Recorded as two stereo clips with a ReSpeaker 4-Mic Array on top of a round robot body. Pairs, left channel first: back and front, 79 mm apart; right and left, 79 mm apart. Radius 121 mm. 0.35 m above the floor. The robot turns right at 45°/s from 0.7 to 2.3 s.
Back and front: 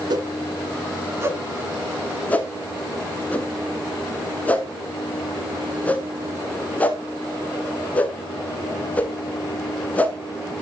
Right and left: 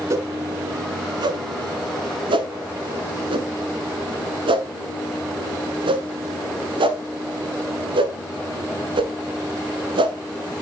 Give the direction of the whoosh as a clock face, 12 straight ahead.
11 o'clock.